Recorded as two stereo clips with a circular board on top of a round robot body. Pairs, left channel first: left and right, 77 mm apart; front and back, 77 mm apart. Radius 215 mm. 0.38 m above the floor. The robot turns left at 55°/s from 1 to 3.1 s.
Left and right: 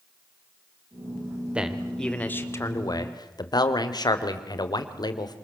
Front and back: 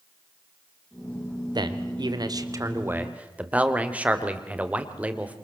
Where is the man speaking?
165° right, 2.5 m; by 5.3 s 110° left, 2.5 m.